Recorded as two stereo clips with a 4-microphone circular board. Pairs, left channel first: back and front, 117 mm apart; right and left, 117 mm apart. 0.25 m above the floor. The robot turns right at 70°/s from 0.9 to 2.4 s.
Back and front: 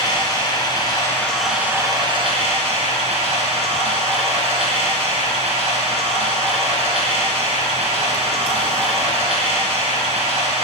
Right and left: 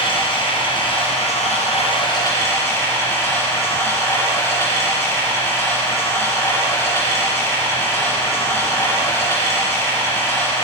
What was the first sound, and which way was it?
Running water, 130° right.